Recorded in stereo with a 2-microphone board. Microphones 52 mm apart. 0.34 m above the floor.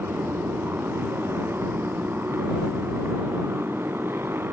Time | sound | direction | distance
0.0 | a motorcycle | 50° right (ahead or behind) | ?